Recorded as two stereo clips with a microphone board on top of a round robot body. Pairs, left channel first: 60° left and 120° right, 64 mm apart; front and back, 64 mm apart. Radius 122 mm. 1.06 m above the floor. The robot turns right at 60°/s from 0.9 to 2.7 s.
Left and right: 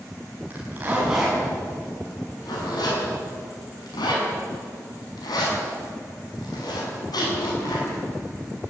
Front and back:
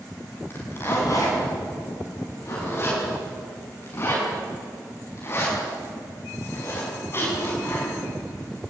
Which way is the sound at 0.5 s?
55° right.